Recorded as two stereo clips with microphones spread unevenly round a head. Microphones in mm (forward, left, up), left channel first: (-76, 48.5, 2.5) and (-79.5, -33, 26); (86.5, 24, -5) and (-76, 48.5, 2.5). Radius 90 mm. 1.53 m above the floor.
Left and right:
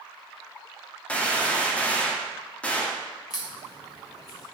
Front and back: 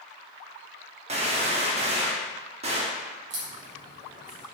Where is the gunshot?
175° left, 1.2 m.